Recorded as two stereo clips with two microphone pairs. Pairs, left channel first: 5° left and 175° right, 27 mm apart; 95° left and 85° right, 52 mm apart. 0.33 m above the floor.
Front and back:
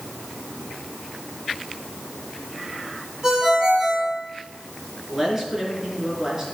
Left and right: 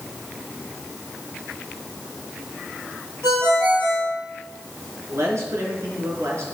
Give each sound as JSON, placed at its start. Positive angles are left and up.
{"t": 3.2, "sound": "a ringtone", "azimuth_deg": -115, "distance_m": 6.0}
{"t": 5.1, "sound": "a man speaking", "azimuth_deg": -100, "distance_m": 4.0}